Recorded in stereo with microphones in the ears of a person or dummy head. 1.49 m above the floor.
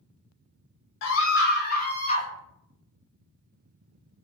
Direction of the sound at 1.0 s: 70° left (ahead or behind).